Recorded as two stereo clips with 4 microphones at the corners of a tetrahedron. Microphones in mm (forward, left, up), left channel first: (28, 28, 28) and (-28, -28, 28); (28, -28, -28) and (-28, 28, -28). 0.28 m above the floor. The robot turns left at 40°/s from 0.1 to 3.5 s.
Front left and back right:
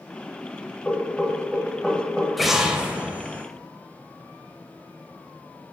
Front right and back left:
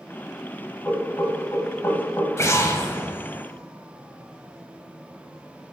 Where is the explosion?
45° right, 0.6 m; by 3.5 s 90° right, 0.6 m.